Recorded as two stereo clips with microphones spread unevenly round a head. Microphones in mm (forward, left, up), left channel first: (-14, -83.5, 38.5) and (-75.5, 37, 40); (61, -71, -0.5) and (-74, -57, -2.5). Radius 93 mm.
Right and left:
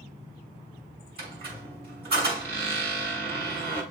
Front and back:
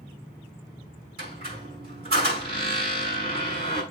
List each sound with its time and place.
1.2 s a squeak: 130° left, 6 m